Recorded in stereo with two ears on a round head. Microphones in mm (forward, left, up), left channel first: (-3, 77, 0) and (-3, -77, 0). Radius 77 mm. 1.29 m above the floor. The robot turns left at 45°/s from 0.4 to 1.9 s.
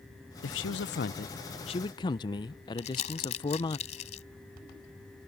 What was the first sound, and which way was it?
A man speaking, 95° left.